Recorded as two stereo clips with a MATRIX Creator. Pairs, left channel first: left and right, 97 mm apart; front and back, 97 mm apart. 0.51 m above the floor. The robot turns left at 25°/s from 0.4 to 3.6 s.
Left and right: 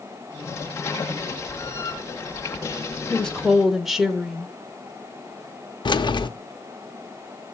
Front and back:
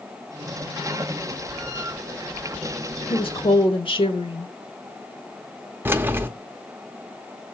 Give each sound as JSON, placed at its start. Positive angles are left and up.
{"t": 3.1, "sound": "a woman speaking", "azimuth_deg": 10, "distance_m": 1.2}
{"t": 5.8, "sound": "keys jangling", "azimuth_deg": 115, "distance_m": 0.6}